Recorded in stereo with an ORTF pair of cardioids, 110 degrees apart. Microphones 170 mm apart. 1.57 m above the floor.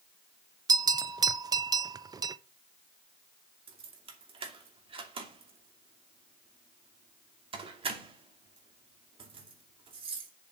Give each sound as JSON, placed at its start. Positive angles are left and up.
{"t": 0.7, "sound": "a bell", "azimuth_deg": -25, "distance_m": 0.7}
{"t": 3.7, "sound": "keys jangling", "azimuth_deg": -35, "distance_m": 2.5}